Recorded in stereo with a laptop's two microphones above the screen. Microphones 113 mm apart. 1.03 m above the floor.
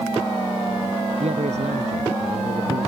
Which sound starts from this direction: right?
A man speaking, at 1.2 s.